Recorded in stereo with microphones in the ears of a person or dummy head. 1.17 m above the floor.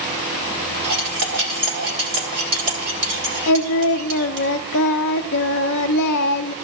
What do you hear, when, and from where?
0.8 s cutlery clinking: 60° right (ahead or behind), 1.8 m
3.5 s singing: 60° left (ahead or behind), 0.5 m